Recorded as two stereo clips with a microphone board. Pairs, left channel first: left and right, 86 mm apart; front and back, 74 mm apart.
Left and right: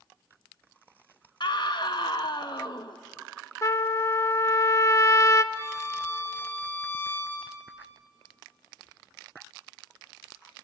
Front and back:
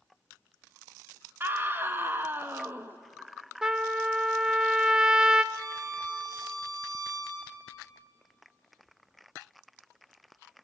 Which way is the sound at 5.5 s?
150° left.